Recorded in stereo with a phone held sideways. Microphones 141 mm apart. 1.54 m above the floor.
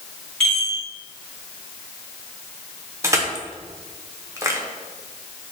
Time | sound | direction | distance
0.4 | a chime | 5° left (ahead or behind) | 1.7 m
3.0 | crushing | 20° right (ahead or behind) | 0.6 m